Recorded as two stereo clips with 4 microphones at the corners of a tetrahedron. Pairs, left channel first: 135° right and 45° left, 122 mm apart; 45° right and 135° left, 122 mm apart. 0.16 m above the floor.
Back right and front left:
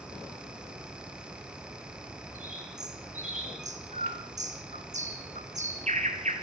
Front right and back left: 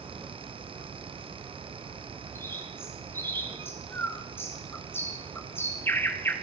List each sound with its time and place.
2.4 s a bird: 25° left, 2 m